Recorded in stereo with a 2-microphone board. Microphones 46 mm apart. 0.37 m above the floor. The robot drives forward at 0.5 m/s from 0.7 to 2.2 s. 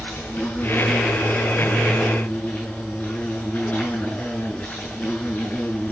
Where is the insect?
45° left (ahead or behind), 7.5 m; by 5.9 s 40° left (ahead or behind), 8 m.